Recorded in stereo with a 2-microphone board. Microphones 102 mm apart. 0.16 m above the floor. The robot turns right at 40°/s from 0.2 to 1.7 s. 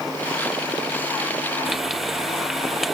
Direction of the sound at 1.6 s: 5° right (ahead or behind).